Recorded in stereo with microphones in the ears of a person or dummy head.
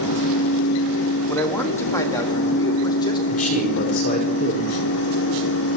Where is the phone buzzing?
No phone buzzing in this recording.